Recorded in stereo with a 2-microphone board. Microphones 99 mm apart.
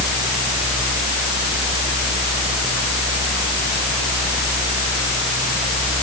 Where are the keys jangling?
No keys jangling in this recording.